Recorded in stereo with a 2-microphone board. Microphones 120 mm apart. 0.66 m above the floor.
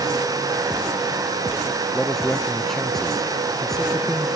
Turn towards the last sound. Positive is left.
turn(degrees=5)  # may be behind; listen again after turning